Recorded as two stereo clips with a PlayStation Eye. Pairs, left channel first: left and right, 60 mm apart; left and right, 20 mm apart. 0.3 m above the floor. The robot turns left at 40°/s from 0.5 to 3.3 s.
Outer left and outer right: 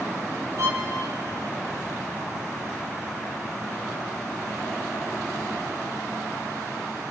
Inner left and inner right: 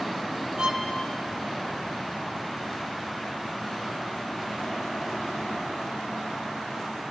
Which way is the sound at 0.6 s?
60° right (ahead or behind).